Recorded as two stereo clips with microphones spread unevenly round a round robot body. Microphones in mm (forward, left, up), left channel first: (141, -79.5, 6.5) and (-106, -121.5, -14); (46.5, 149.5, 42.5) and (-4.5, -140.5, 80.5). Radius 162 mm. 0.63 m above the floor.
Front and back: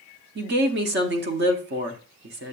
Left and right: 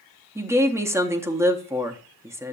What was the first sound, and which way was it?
A woman speaking, 175° left.